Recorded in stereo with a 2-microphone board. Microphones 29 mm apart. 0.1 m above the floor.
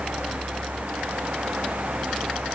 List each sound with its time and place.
Only background noise.